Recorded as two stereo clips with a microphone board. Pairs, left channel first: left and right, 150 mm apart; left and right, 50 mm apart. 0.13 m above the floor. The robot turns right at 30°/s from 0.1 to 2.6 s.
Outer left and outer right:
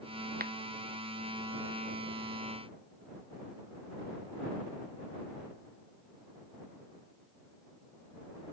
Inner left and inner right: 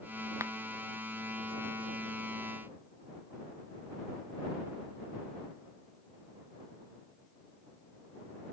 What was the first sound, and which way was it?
A finger snap, 75° right (ahead or behind).